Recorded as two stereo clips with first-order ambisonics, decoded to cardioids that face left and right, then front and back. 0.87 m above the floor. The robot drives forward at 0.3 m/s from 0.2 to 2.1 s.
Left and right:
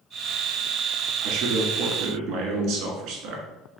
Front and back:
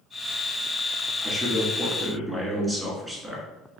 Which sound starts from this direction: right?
A man speaking, at 1.2 s.